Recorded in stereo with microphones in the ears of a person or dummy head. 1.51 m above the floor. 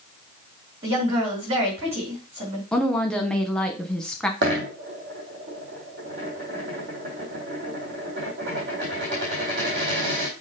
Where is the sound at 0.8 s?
25° right (ahead or behind), 4.5 m.